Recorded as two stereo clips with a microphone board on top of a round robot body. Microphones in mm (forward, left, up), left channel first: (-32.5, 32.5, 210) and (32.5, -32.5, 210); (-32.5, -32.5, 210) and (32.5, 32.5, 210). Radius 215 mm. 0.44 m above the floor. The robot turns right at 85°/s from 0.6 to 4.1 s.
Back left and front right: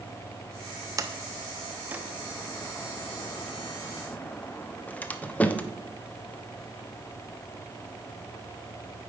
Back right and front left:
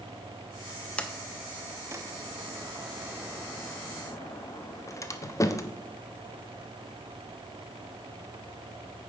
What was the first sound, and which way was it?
A sliding door, 65° right.